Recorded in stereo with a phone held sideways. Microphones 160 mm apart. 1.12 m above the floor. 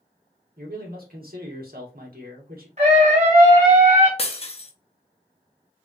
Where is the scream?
45° right (ahead or behind), 1.7 m.